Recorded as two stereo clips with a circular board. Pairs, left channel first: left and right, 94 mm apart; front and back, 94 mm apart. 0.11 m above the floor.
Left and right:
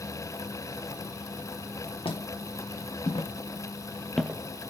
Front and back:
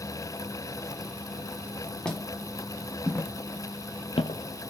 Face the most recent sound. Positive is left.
turn(degrees=-35)